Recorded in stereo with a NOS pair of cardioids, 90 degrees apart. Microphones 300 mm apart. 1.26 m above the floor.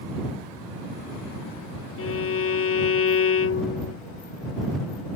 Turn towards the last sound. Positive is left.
turn(degrees=45)